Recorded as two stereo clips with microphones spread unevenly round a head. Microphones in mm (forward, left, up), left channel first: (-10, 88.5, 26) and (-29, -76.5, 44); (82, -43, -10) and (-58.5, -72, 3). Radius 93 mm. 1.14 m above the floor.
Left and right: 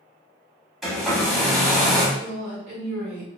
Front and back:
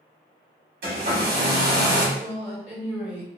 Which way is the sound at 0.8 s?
175° left.